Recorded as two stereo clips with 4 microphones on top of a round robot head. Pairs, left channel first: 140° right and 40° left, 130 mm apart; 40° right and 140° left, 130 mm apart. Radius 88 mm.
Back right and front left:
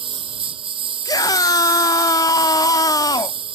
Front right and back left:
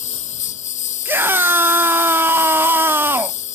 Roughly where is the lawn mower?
Ahead.